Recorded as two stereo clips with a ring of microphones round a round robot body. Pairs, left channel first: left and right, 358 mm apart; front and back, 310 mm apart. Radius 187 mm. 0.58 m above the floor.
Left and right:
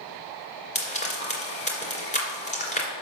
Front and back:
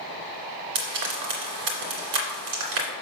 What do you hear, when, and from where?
0.8 s frying: 160° left, 2 m